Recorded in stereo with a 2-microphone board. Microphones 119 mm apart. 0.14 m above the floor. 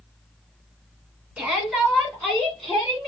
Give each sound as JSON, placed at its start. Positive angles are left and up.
{"t": 1.4, "sound": "a shout", "side_deg": -10, "distance_m": 1.7}